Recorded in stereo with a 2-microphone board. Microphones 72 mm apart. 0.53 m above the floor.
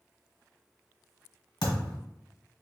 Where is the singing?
I don't hear singing.